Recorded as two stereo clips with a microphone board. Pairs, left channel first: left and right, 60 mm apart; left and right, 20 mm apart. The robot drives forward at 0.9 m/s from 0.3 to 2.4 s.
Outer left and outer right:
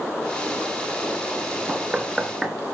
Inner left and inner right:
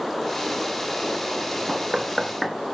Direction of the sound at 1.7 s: 15° right (ahead or behind).